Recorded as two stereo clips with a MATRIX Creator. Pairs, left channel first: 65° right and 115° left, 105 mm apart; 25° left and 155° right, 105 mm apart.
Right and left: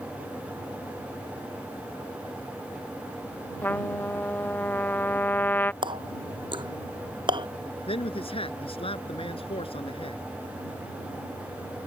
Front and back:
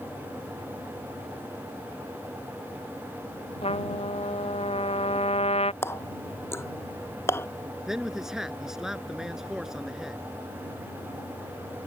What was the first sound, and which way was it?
A trumpet, 5° left.